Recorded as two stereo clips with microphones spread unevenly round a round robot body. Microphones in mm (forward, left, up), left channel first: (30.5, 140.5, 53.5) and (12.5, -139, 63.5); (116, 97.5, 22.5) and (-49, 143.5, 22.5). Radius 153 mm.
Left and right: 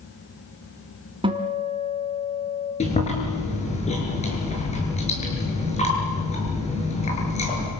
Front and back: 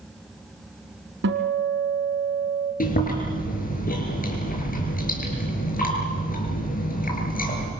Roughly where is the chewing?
Ahead.